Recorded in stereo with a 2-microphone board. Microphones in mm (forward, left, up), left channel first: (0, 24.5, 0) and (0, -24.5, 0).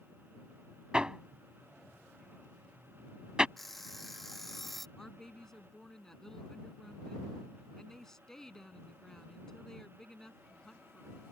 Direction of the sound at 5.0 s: 10° left (ahead or behind).